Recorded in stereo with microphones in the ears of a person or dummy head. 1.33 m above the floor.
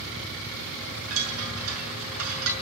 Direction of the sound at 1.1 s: 75° right (ahead or behind).